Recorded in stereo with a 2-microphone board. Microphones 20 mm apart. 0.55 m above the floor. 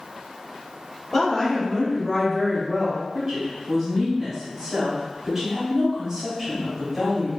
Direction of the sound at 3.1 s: 20° right (ahead or behind).